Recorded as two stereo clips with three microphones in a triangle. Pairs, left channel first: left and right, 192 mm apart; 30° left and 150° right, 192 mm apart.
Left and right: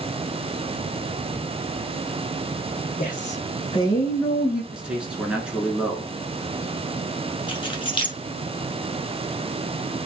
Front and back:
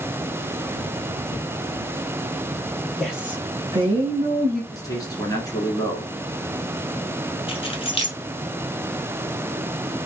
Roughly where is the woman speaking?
Behind left.